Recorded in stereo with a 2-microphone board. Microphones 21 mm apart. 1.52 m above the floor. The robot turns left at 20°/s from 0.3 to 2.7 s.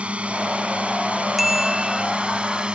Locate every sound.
0.0 s a drone: 75° right (ahead or behind); by 2.8 s 55° right (ahead or behind)
1.4 s a bicycle bell: 5° right (ahead or behind); by 2.0 s 20° right (ahead or behind)